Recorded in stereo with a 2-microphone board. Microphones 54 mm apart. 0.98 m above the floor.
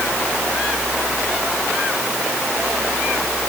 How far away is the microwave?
I don't hear a microwave.